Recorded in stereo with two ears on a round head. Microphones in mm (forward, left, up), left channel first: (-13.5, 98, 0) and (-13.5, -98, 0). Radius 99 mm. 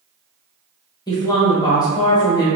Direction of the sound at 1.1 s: 15° left (ahead or behind).